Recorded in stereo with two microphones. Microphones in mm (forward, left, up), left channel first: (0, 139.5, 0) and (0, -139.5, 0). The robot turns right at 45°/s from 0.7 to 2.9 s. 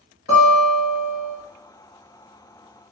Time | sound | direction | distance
0.3 | a guitar | 60° left (ahead or behind) | 1.1 m